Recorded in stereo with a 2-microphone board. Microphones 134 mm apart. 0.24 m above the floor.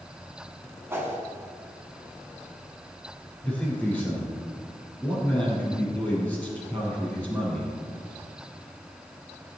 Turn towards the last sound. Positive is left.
turn(degrees=15)  # may be behind; listen again after turning